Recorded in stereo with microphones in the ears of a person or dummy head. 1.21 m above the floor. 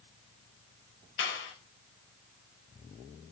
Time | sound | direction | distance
1.2 | a clap | 60° left (ahead or behind) | 4 m